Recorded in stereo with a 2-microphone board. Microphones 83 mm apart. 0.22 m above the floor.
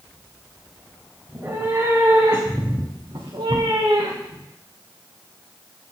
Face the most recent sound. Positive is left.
turn(degrees=-85)